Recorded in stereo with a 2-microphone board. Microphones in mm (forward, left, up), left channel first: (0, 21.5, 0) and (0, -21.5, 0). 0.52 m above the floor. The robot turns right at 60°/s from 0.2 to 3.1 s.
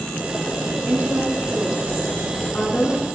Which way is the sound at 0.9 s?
65° right.